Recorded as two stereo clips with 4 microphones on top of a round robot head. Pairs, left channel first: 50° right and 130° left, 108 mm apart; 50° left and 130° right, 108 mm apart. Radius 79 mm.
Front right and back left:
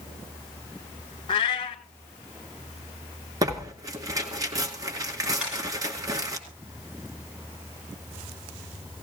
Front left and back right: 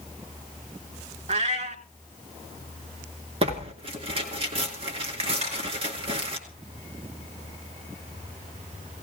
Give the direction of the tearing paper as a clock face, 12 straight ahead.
6 o'clock.